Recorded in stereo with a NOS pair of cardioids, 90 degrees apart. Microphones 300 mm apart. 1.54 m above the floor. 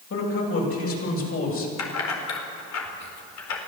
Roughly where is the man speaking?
Ahead left.